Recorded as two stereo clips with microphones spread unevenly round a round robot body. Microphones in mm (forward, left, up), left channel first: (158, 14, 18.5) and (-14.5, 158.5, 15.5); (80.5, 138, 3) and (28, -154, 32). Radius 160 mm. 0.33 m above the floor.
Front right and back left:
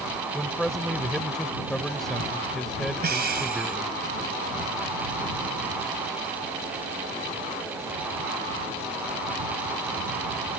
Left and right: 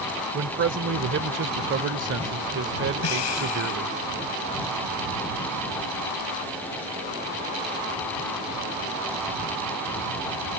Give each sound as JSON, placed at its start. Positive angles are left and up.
{"t": 0.3, "sound": "a man speaking", "azimuth_deg": -125}
{"t": 3.0, "sound": "breathing", "azimuth_deg": 100}